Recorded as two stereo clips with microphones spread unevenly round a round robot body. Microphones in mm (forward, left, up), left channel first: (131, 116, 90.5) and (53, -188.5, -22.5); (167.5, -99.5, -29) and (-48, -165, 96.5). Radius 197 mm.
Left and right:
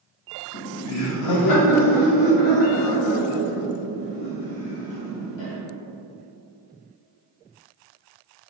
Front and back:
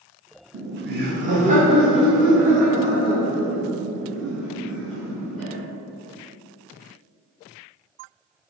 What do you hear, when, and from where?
0.5 s laughter: 145° left, 0.7 m; by 5.5 s 100° left, 3.5 m